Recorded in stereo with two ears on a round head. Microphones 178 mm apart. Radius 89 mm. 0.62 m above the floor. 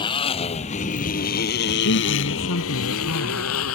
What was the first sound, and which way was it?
A motorcycle, 25° left (ahead or behind).